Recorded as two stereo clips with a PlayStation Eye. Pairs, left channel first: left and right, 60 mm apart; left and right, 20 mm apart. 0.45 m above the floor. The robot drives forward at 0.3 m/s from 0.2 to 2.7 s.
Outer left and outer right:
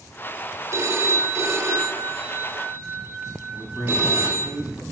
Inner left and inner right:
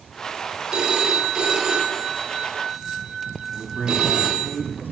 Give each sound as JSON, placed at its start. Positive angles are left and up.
{"t": 0.7, "sound": "a phone ringing", "side_deg": -50, "distance_m": 1.0}
{"t": 3.5, "sound": "a man speaking", "side_deg": 70, "distance_m": 2.5}